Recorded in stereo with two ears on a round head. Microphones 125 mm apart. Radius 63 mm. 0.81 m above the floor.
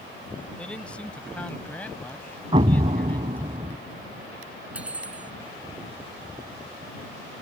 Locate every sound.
0.6 s a man speaking: 10° left (ahead or behind)
2.5 s an explosion: 35° right (ahead or behind)
4.7 s cutlery clinking: 10° right (ahead or behind)